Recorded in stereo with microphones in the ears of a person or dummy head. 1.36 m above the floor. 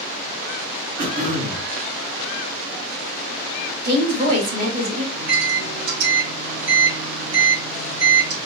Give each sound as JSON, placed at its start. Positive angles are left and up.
{"t": 1.0, "sound": "throat clearing", "side_deg": -45, "distance_m": 3.0}
{"t": 3.8, "sound": "a woman speaking", "side_deg": -45, "distance_m": 3.0}
{"t": 5.1, "sound": "a microwave", "side_deg": -80, "distance_m": 3.0}